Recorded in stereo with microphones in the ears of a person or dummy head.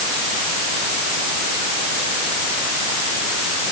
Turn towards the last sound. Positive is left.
No sound to turn to.